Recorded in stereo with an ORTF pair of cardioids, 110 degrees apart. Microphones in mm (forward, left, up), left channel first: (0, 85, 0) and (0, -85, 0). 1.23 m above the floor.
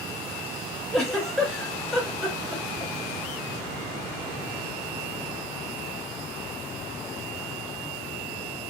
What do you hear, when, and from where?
0.9 s a giggle: 5° left, 1.4 m